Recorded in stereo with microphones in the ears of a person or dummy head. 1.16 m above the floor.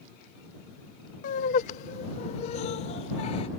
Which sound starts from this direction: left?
Laughter, at 1.2 s.